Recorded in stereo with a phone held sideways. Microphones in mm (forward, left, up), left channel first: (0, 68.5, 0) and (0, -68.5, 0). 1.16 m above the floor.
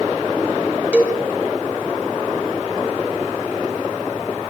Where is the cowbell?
10° right (ahead or behind), 3.5 m.